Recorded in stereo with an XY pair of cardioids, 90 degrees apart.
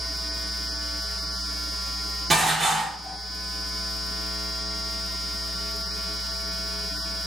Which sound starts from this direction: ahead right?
Dishes clattering, at 2.3 s.